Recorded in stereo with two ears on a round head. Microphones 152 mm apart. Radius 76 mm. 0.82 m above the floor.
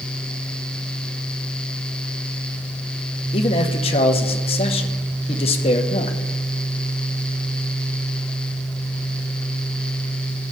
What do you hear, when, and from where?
3.3 s a man speaking: 35° left (ahead or behind), 0.9 m